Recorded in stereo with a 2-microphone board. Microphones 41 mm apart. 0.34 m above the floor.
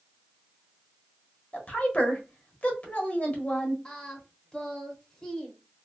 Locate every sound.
1.5 s a woman speaking: 35° left (ahead or behind), 1.0 m
3.9 s singing: 15° left (ahead or behind), 0.8 m